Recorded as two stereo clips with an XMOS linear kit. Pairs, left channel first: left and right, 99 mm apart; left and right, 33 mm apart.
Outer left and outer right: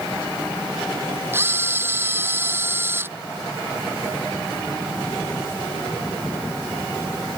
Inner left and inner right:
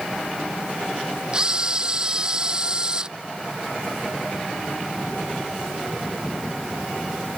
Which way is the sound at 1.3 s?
25° right (ahead or behind).